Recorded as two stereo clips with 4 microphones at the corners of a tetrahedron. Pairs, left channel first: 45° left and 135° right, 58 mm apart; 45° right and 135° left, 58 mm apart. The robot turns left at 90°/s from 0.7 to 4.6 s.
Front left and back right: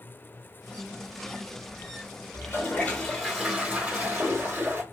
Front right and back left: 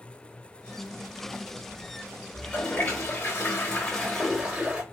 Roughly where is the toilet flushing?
Ahead left.